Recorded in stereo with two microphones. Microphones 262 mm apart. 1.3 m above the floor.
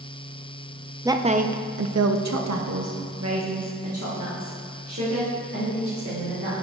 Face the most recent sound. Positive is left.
turn(degrees=-55)  # may be behind; listen again after turning